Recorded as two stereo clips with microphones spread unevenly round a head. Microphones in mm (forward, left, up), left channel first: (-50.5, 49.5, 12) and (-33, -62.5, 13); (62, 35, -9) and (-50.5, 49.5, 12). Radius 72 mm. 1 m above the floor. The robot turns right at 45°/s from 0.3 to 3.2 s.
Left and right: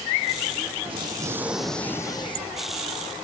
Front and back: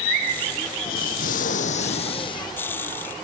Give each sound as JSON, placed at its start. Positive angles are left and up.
{"t": 0.8, "sound": "an explosion", "azimuth_deg": -25}